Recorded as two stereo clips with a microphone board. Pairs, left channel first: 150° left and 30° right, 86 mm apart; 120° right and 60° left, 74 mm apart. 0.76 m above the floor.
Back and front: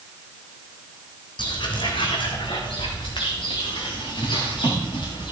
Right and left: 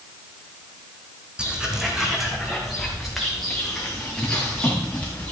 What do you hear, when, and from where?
1.4 s footsteps: 135° left, 1.7 m; by 5.3 s 165° left, 4 m